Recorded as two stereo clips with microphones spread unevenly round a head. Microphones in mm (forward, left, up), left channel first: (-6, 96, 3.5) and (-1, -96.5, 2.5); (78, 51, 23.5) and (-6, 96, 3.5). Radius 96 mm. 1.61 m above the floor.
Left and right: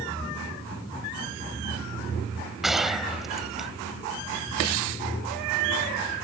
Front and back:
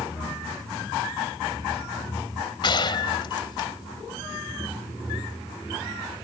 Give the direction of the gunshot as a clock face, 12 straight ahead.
12 o'clock.